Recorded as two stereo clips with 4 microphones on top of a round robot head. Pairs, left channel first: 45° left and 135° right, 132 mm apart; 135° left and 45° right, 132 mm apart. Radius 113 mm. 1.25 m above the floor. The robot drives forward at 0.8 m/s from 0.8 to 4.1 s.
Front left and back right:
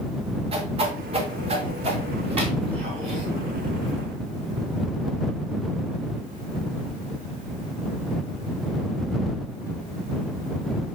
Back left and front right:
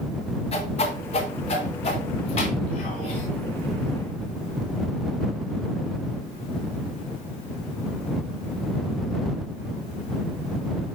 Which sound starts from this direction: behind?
A whoosh, at 0.5 s.